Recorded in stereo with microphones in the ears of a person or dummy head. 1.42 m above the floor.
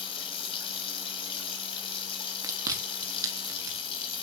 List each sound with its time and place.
0.0 s running water: 30° left (ahead or behind), 3 m
2.4 s chewing: 15° right (ahead or behind), 2.5 m